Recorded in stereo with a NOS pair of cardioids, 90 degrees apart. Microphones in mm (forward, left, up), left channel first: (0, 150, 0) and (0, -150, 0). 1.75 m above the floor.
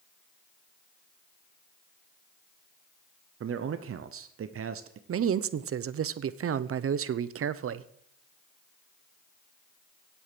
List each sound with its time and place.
3.4 s a man speaking: 45° right, 0.9 m
5.1 s a man speaking: 50° right, 0.9 m